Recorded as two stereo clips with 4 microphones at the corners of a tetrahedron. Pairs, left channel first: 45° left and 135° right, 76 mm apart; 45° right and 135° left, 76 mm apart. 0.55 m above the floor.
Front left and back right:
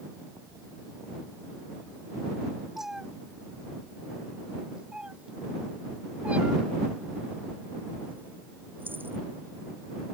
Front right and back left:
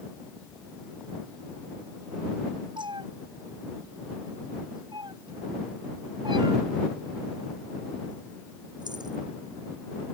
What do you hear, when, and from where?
2.8 s a cat meowing: 140° left; by 9.2 s 160° left